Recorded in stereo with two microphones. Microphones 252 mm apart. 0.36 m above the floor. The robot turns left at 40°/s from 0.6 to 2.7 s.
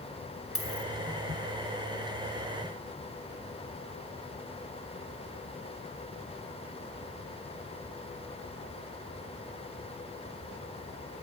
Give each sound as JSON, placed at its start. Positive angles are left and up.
{"t": 0.6, "sound": "a dropped coin", "side_deg": 65, "distance_m": 1.7}